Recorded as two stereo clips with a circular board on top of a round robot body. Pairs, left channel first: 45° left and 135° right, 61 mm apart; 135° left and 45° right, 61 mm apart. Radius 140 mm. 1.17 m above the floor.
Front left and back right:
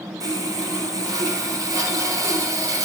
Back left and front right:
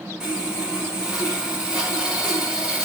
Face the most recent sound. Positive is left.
turn(degrees=-125)